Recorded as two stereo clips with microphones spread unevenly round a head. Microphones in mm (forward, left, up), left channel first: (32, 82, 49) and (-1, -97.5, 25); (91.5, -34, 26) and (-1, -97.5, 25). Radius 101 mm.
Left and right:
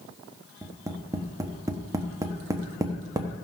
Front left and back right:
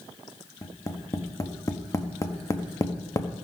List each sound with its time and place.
0.6 s tapping: 30° right, 1.2 m